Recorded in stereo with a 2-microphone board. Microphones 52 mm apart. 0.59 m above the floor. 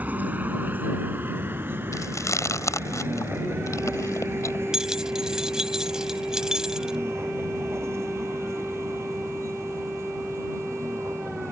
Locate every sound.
0.0 s a vehicle: 30° right (ahead or behind); by 11.5 s 55° right (ahead or behind)
1.9 s chewing: 70° left (ahead or behind)
4.7 s keys jangling: 10° right (ahead or behind)